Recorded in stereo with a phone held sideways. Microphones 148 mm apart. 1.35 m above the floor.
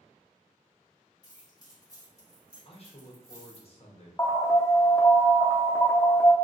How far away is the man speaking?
About 0.7 m.